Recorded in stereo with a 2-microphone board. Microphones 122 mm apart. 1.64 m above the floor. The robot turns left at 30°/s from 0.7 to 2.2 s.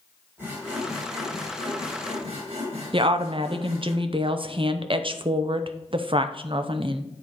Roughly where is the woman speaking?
Right.